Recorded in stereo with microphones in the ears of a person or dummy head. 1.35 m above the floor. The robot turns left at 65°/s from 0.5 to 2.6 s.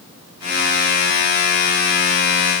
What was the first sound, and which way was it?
Only background noise.